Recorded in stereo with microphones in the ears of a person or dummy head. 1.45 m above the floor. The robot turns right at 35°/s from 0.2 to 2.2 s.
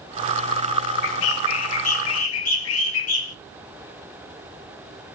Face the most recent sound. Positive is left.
turn(degrees=110)